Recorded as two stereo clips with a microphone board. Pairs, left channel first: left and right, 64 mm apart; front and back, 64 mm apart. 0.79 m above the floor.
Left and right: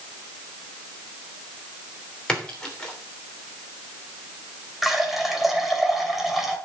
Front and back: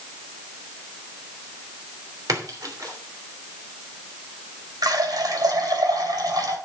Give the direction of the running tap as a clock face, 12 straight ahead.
6 o'clock.